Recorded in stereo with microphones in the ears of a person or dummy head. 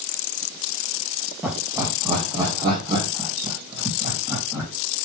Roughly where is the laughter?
Centre.